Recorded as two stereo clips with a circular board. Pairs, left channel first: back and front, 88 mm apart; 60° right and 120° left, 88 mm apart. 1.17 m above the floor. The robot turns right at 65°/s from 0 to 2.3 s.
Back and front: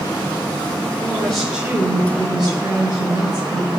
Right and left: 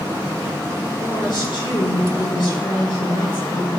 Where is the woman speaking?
120° right, 7.5 m; by 3.7 s 30° right, 7.5 m.